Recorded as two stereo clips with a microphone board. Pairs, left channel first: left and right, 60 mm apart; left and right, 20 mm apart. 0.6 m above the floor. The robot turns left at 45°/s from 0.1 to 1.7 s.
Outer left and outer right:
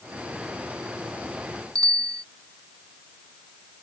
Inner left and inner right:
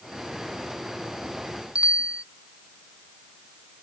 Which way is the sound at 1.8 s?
80° right.